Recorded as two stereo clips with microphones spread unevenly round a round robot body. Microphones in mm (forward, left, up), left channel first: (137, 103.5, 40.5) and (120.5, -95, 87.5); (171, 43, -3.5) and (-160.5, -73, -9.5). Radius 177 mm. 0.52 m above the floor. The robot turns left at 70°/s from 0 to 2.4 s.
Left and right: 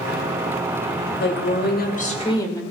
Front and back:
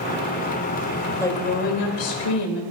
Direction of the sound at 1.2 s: 105° left.